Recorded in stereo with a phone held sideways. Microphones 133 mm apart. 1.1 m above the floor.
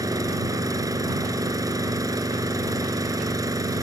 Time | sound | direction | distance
0.0 | an engine running | 25° right (ahead or behind) | ?